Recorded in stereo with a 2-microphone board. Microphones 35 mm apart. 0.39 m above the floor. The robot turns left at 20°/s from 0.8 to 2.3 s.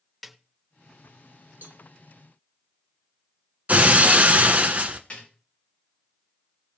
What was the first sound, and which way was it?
A snare drum, centre (ahead or behind).